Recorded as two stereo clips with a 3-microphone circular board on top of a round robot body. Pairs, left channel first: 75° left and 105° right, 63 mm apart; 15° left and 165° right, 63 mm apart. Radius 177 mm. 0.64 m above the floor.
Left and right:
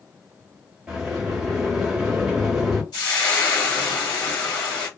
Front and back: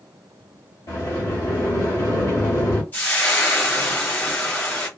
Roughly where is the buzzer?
No buzzer in this recording.